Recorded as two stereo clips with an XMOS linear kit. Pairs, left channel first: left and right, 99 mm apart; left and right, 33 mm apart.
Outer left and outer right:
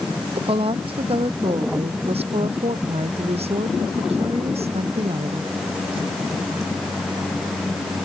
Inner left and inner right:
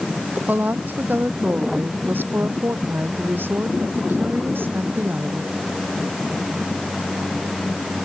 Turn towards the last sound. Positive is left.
turn(degrees=-85)